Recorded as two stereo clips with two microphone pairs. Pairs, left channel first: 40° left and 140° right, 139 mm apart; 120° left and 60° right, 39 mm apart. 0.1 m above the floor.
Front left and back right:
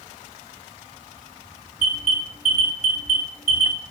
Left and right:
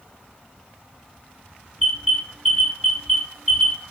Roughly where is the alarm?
Ahead right.